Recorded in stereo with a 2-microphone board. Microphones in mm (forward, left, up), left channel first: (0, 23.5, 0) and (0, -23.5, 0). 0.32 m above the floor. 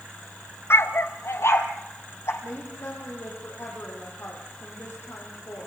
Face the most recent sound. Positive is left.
turn(degrees=60)  # may be behind; listen again after turning